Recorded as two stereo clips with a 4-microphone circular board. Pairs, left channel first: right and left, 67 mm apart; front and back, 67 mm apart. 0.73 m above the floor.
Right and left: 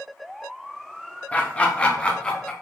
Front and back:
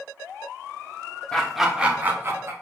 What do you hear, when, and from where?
1.3 s laughter: 60° right, 0.6 m; by 2.5 s 165° right, 0.8 m